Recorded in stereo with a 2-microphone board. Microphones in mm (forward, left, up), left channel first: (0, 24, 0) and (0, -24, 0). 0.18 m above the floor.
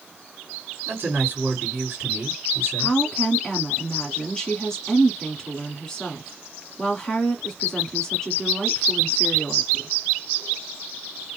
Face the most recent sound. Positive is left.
turn(degrees=10)  # may be behind; listen again after turning